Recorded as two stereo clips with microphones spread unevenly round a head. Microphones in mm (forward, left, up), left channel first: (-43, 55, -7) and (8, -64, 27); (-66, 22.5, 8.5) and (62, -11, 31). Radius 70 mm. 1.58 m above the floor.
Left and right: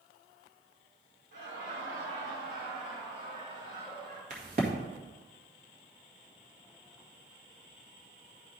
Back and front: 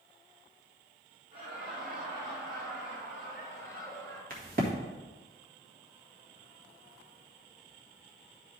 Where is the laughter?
50° right, 3.5 m; by 4.2 s 30° right, 5 m.